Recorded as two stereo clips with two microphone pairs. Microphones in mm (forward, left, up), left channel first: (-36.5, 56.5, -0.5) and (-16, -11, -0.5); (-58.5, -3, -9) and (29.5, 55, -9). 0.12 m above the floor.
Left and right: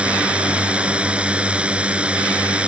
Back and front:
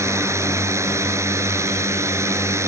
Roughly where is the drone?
Ahead.